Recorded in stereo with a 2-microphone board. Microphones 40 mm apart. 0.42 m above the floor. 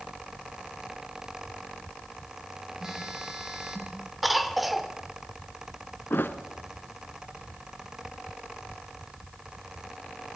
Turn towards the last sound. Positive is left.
turn(degrees=60)  # may be behind; listen again after turning